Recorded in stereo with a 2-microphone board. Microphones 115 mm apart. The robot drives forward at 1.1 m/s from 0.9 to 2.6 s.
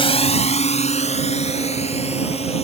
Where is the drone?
55° left (ahead or behind); by 2.6 s 65° left (ahead or behind).